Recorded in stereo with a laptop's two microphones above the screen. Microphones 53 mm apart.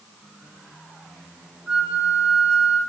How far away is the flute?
About 1.7 m.